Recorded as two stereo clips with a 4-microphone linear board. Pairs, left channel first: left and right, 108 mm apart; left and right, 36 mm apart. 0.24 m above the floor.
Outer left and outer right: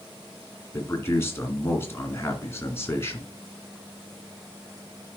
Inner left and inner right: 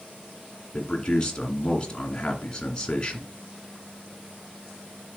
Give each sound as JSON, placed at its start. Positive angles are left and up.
{"t": 0.7, "sound": "a man speaking", "side_deg": 25, "distance_m": 2.0}